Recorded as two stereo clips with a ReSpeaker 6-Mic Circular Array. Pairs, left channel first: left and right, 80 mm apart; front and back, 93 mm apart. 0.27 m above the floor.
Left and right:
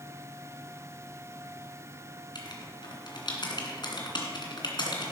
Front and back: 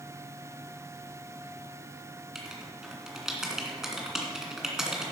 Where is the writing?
95° left, 2 m.